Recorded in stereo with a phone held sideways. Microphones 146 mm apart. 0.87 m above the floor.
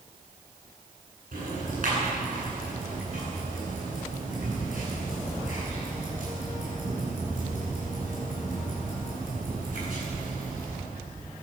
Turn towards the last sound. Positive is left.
turn(degrees=-65)  # may be behind; listen again after turning